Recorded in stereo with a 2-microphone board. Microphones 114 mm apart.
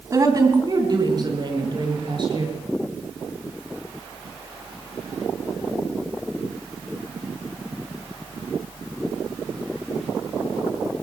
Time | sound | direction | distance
0.1 | a woman speaking | 30° right (ahead or behind) | 2.5 m